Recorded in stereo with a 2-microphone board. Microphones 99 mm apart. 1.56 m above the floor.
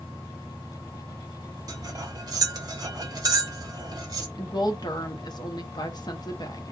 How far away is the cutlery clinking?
About 0.9 m.